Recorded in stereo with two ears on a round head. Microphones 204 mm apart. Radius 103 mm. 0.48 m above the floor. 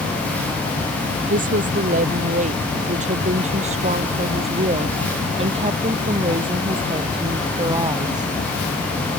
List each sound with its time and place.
1.3 s a woman speaking: 40° right (ahead or behind); by 8.3 s 20° right (ahead or behind)